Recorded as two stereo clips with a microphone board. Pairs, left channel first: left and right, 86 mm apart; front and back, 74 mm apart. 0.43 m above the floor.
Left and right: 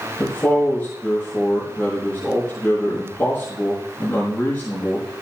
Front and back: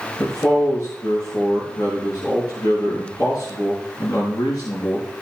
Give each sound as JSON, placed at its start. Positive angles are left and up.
{"t": 0.2, "sound": "a man speaking", "azimuth_deg": 25, "distance_m": 5.0}